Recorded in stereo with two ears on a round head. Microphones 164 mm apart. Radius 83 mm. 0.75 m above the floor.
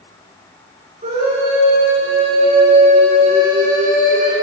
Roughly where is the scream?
Right.